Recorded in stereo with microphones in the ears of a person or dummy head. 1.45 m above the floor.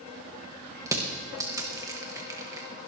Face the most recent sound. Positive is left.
turn(degrees=-20)  # may be behind; listen again after turning